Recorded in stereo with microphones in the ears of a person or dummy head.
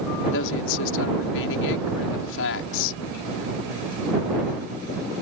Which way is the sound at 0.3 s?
75° left (ahead or behind).